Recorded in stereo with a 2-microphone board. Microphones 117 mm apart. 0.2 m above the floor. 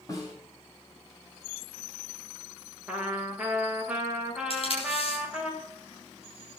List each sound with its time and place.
0.1 s a snare drum: 30° left (ahead or behind), 6 m
2.9 s a trumpet: 10° right (ahead or behind), 5.5 m
4.5 s tape being pulled: 55° left (ahead or behind), 8 m